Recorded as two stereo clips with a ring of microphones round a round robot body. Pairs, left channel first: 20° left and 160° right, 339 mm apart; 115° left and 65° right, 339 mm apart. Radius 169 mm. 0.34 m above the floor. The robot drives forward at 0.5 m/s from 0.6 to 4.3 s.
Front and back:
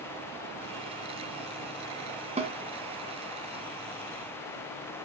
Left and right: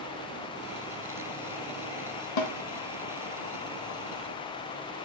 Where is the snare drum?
130° left, 1.4 m; by 2.5 s 135° left, 1.5 m.